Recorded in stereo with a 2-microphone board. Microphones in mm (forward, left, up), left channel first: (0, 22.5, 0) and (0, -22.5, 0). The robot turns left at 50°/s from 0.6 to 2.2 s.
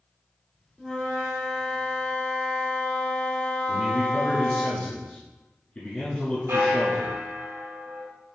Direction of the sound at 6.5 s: 65° right (ahead or behind).